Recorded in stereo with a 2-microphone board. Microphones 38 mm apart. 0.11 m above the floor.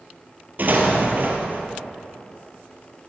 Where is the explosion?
50° right (ahead or behind), 2.5 m.